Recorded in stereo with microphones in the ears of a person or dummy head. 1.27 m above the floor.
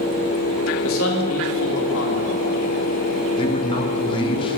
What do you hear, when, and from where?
0.8 s a man speaking: 75° left (ahead or behind), 2.5 m
3.4 s a man speaking: 30° left (ahead or behind), 1.3 m